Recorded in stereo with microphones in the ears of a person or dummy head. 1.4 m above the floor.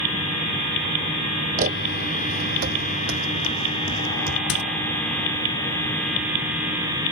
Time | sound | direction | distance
1.6 | footsteps | 40° right (ahead or behind) | ?
4.5 | a squeak | 45° left (ahead or behind) | ?